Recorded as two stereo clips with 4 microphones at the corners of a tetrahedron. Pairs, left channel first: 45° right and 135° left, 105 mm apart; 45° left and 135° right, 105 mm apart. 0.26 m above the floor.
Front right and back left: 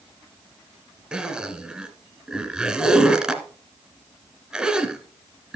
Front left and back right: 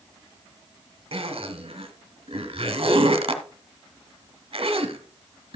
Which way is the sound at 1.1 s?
145° right.